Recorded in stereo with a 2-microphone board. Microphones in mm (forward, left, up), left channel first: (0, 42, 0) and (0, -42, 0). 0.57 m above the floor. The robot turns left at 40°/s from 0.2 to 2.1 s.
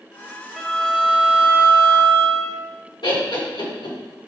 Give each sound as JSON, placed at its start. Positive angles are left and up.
{"t": 0.6, "sound": "a violin", "azimuth_deg": 5, "distance_m": 1.0}
{"t": 3.0, "sound": "laughter", "side_deg": 65, "distance_m": 2.5}